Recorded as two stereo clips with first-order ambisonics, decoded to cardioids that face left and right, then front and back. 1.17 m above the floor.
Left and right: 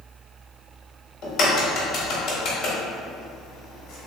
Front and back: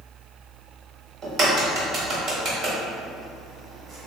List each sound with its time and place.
1.2 s a crack: 130° left, 1.0 m